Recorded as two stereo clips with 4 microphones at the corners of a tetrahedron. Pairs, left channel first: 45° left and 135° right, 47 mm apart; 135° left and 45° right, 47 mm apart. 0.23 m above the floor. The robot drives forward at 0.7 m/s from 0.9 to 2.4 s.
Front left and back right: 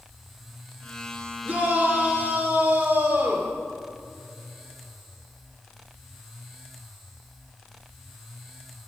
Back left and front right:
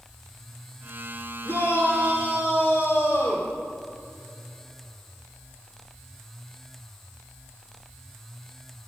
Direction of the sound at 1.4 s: 155° left.